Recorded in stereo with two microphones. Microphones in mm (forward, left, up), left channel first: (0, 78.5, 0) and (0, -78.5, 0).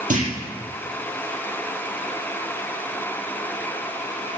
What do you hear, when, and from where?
0.1 s a clunk: 55° right (ahead or behind), 2.5 m